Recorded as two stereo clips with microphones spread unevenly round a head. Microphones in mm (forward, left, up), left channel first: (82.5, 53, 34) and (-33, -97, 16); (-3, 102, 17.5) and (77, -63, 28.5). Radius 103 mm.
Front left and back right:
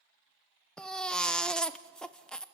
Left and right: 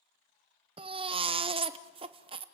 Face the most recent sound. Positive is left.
turn(degrees=-25)